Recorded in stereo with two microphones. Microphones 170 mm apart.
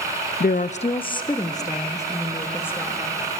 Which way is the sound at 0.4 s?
65° left (ahead or behind).